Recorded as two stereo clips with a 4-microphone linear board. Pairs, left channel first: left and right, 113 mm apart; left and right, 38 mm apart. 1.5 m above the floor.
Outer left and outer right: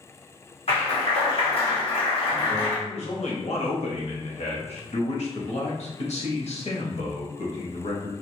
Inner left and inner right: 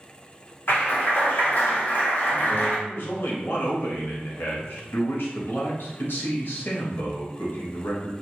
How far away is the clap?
About 1.2 m.